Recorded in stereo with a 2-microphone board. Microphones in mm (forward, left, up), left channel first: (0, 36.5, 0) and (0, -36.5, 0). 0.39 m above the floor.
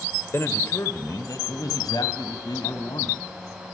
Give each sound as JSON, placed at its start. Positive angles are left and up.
{"t": 0.3, "sound": "a man speaking", "side_deg": 35, "distance_m": 1.6}